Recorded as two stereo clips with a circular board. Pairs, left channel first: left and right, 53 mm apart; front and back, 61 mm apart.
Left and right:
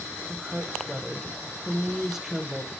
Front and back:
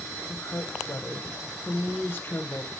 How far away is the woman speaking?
About 1.4 m.